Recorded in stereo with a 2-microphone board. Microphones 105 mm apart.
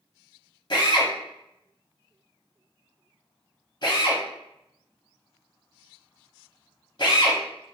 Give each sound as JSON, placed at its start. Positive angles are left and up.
{"t": 0.7, "sound": "a drill", "side_deg": 50, "distance_m": 0.7}